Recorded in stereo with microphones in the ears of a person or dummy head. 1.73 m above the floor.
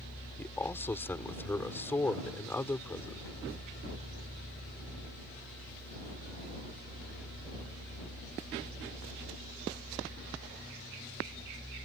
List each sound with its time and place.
0.4 s a man speaking: 10° left (ahead or behind)